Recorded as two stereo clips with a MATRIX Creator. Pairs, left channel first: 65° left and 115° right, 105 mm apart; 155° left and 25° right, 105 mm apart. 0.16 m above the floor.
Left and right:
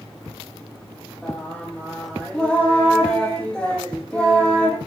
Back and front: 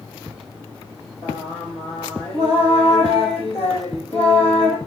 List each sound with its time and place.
1.2 s singing: 150° left, 4 m